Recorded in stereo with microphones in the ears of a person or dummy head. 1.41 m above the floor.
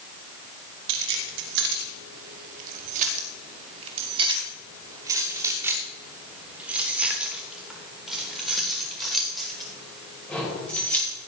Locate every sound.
0.9 s keys jangling: 70° right (ahead or behind), 2 m; by 11.2 s 15° left (ahead or behind), 5 m